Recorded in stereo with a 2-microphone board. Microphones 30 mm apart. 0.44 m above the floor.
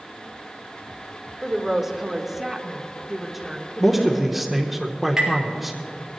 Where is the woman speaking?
10° right (ahead or behind), 1.4 m; by 4.5 s 5° right (ahead or behind), 1.4 m.